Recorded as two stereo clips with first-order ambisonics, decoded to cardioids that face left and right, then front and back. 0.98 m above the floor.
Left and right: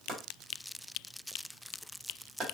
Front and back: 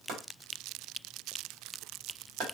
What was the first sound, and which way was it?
Chopping, 150° right.